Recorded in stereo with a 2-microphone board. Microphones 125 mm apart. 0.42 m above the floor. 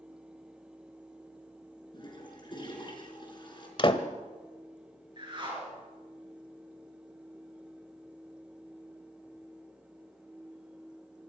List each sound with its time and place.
1.9 s a toilet flushing: 40° left (ahead or behind), 4.5 m
3.8 s a door slam: 45° left (ahead or behind), 1.3 m
5.2 s a whoosh: 40° right (ahead or behind), 5.5 m